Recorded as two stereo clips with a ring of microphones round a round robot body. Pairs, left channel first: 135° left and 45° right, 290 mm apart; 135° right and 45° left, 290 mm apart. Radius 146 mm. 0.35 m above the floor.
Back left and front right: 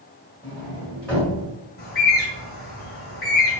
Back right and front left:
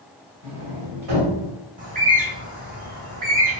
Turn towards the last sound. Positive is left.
turn(degrees=95)